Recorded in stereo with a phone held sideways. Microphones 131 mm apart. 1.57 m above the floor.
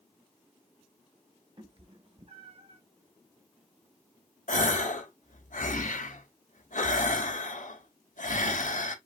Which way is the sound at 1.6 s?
45° right (ahead or behind).